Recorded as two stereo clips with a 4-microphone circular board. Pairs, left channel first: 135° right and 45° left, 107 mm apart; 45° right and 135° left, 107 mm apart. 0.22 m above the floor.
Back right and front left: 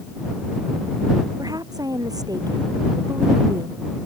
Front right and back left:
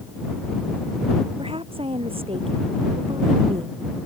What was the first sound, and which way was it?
A woman speaking, 100° left.